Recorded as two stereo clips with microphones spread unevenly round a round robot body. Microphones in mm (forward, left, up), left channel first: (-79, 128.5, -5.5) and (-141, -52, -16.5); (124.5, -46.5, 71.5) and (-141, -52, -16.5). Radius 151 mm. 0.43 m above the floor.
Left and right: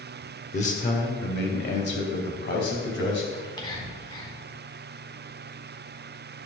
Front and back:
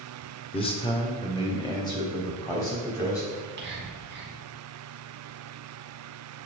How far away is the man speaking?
About 1.5 m.